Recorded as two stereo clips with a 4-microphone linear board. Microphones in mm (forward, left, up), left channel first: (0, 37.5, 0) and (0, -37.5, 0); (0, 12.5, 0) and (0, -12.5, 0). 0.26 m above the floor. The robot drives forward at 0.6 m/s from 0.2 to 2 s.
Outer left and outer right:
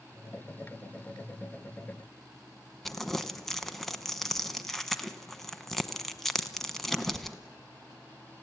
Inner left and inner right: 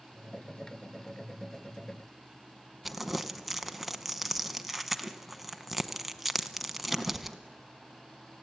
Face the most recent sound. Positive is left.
turn(degrees=0)  # may be behind; listen again after turning